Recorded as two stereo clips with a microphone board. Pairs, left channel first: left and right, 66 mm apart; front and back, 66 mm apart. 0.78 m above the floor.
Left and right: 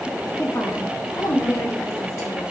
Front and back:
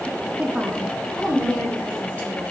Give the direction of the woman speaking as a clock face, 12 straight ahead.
8 o'clock.